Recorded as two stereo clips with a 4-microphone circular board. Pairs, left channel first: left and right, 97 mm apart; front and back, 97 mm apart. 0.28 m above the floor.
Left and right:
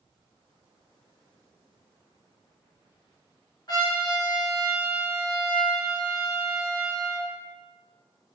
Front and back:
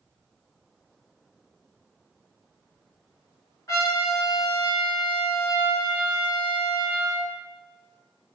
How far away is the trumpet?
About 1.5 m.